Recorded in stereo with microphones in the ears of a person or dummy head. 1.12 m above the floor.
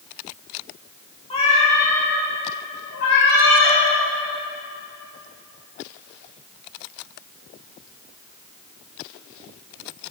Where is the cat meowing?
25° left (ahead or behind), 1.1 m; by 3.8 s 70° left (ahead or behind), 1.8 m.